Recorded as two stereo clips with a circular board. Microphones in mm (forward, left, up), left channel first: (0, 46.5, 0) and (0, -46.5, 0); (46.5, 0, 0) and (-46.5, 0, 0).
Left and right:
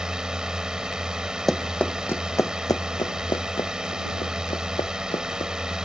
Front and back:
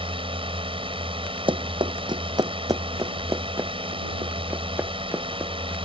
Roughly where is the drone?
Behind.